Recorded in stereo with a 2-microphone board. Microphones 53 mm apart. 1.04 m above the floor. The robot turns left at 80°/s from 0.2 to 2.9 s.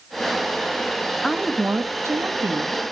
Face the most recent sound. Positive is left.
turn(degrees=-130)